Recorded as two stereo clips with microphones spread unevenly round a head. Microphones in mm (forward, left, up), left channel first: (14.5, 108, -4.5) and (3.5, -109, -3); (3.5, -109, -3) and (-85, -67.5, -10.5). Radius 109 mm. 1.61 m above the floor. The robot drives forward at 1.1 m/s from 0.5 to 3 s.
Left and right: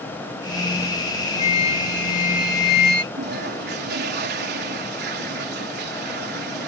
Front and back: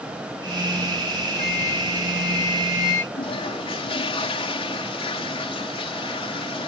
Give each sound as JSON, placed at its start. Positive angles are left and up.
{"t": 1.4, "sound": "a flute", "azimuth_deg": 25}
{"t": 3.1, "sound": "a toilet flushing", "azimuth_deg": -50}